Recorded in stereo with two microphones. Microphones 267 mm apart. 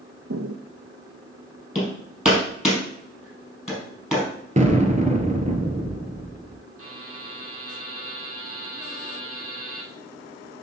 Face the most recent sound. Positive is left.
turn(degrees=-60)  # may be behind; listen again after turning